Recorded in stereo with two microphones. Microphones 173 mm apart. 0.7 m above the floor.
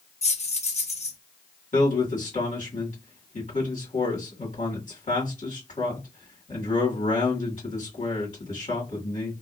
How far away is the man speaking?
About 1.7 m.